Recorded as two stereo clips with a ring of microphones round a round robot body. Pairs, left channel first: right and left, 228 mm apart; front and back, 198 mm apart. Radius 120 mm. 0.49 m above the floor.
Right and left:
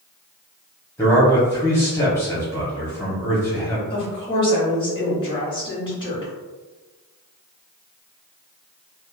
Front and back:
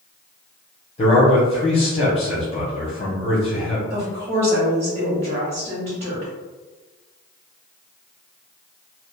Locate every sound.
1.0 s a man speaking: 20° right, 0.9 m
3.9 s a woman speaking: 145° right, 1.2 m